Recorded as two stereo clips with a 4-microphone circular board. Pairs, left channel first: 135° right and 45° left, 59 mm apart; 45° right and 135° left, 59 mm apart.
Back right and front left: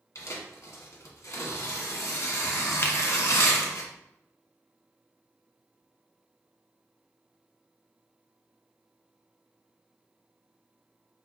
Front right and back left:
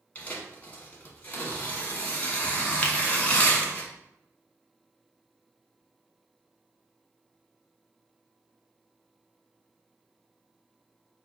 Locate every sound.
0.1 s tearing paper: 105° right, 1.3 m
2.8 s a finger snap: 105° right, 0.7 m